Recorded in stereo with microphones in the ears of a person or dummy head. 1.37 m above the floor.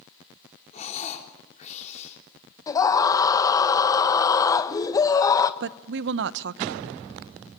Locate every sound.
0.7 s breathing: 45° left (ahead or behind), 4 m
2.7 s a scream: 10° left (ahead or behind), 1.3 m
5.6 s a woman speaking: 60° right (ahead or behind), 0.8 m